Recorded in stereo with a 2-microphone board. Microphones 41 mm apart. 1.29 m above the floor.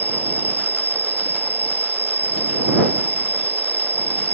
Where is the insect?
70° right (ahead or behind).